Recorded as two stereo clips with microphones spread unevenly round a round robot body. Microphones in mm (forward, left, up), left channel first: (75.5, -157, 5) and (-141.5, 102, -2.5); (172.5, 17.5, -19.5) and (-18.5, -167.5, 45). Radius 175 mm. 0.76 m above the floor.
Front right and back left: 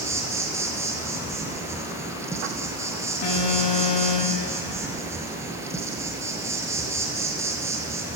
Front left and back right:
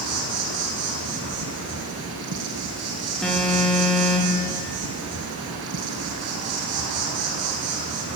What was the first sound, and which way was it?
An insect, 150° right.